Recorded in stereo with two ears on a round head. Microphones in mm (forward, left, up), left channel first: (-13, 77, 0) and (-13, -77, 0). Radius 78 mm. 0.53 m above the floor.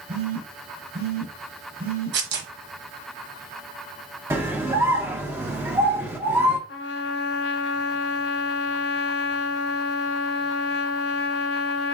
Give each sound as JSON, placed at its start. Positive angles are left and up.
{"t": 0.1, "sound": "a phone buzzing", "side_deg": -55, "distance_m": 1.8}
{"t": 2.1, "sound": "tearing paper", "side_deg": -75, "distance_m": 1.0}
{"t": 4.3, "sound": "a scream", "side_deg": -15, "distance_m": 0.9}
{"t": 6.7, "sound": "a trumpet", "side_deg": 70, "distance_m": 0.6}